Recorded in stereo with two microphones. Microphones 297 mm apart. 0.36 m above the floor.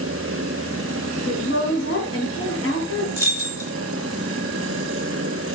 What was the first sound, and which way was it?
A woman speaking, 45° left (ahead or behind).